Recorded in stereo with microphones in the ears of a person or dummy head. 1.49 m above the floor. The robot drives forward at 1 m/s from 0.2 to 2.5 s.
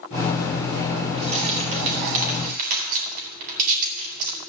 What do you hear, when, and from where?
1.2 s keys jangling: 35° right (ahead or behind), 5 m; by 4.4 s 50° right (ahead or behind), 4 m